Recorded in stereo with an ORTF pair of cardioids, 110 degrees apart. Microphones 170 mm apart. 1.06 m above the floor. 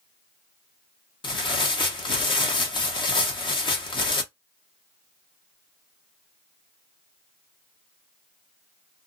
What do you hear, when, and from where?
1.2 s tearing paper: 30° left, 0.9 m